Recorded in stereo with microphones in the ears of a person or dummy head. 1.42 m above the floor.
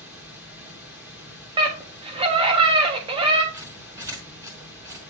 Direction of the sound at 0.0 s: 5° right (ahead or behind).